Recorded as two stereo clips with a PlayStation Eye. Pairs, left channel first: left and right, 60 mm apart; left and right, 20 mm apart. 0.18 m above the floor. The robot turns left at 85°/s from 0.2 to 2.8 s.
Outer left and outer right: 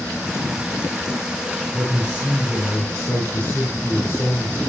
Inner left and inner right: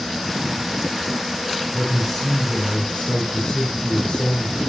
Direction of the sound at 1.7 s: 145° right.